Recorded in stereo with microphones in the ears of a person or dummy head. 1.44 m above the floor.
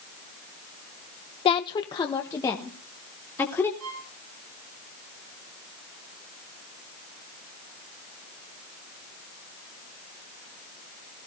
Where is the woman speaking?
30° left (ahead or behind), 0.5 m; by 3.7 s 15° left (ahead or behind), 2.5 m.